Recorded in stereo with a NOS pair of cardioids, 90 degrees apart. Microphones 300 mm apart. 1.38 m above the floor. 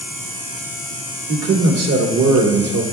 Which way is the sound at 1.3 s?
60° right.